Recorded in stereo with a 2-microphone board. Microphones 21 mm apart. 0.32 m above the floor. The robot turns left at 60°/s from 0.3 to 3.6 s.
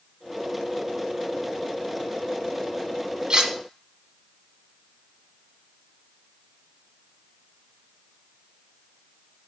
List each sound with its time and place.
3.3 s cutlery clinking: 45° right (ahead or behind), 1.4 m; by 3.5 s 30° right (ahead or behind), 1.4 m